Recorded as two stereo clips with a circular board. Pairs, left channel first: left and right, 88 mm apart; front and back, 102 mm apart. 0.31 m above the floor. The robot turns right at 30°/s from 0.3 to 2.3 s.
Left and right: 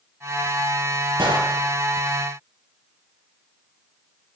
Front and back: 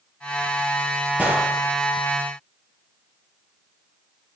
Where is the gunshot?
105° right, 6 m; by 1.5 s 95° right, 6 m.